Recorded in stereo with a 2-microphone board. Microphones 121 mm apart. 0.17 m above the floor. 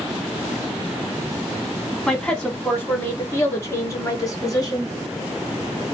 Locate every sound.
2.1 s a woman speaking: 5° left (ahead or behind), 1.6 m; by 4.9 s 35° left (ahead or behind), 1.9 m